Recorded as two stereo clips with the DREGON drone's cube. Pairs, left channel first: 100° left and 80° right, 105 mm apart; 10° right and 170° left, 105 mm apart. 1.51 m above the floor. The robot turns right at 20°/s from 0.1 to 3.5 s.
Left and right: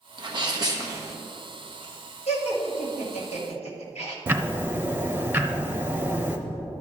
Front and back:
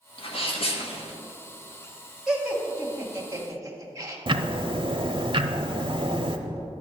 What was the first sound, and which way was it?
A sneeze, 35° right.